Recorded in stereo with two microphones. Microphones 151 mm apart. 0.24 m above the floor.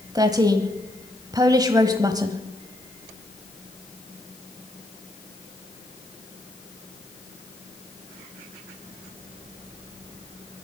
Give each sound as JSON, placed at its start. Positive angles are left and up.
{"t": 0.1, "sound": "a woman speaking", "side_deg": -25, "distance_m": 1.1}